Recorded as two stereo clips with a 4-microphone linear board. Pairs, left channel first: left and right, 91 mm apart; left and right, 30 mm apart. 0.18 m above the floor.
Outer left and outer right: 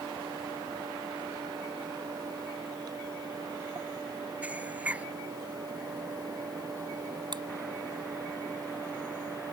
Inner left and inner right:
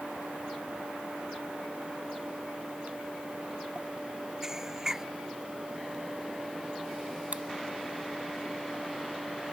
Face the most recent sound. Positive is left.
turn(degrees=-55)  # may be behind; listen again after turning